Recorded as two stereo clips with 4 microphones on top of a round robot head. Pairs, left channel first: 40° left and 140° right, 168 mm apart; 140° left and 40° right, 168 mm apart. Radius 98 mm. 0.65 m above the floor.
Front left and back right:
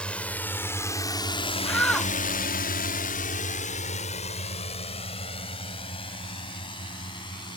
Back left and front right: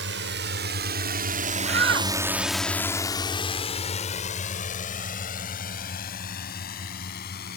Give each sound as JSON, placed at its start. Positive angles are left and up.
{"t": 0.0, "sound": "a drone", "azimuth_deg": -40}
{"t": 1.6, "sound": "a shout", "azimuth_deg": -40}